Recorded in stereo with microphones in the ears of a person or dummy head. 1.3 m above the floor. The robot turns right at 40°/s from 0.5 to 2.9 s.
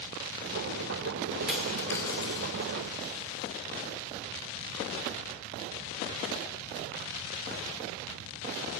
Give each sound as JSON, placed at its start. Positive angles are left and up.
{"t": 1.5, "sound": "a dropped coin", "side_deg": 0, "distance_m": 2.0}